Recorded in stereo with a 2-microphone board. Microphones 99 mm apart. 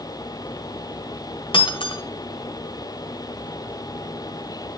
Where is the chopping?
No chopping in this recording.